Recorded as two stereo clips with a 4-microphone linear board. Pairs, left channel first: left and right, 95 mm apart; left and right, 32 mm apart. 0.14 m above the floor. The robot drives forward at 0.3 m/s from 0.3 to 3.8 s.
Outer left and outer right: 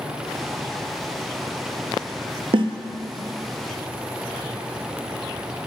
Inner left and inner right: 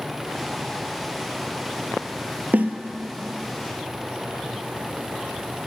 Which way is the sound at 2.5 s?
65° right (ahead or behind).